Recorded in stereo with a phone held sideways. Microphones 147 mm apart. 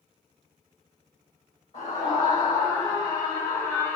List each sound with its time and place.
1.7 s a scream: 40° left (ahead or behind), 5 m; by 4.0 s 15° left (ahead or behind), 3 m